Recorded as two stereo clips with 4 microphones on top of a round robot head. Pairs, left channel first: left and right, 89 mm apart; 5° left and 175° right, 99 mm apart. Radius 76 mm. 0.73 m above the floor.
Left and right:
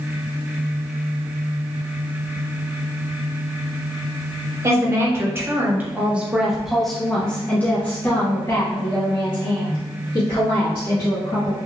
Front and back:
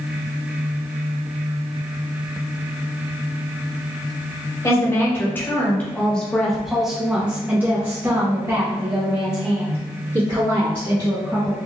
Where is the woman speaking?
50° right, 1.4 m; by 11.6 s 135° left, 2.5 m.